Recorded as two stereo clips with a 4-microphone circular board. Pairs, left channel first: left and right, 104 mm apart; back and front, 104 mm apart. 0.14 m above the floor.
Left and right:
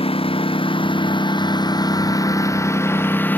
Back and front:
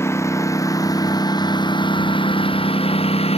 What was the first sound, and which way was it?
A lawn mower, 115° left.